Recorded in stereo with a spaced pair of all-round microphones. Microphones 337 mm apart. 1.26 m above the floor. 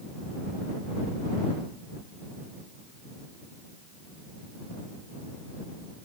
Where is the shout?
I don't hear a shout.